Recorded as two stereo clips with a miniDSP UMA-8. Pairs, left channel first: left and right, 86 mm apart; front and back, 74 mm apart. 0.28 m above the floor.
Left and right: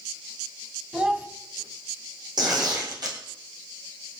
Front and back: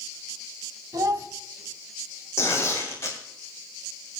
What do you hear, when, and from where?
0.9 s a child speaking: 165° right, 1.4 m
2.4 s tearing paper: 55° right, 3.5 m